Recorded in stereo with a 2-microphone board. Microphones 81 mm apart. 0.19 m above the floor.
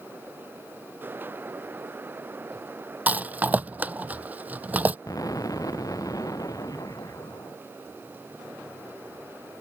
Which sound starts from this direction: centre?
A rattle, at 3.1 s.